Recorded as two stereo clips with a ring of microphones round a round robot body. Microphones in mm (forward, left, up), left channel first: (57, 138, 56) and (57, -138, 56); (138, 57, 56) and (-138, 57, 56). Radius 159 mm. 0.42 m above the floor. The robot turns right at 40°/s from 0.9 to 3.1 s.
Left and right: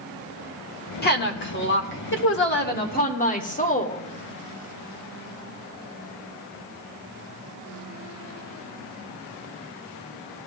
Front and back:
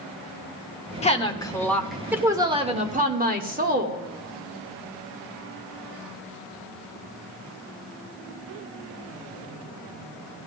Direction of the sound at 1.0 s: 55° left.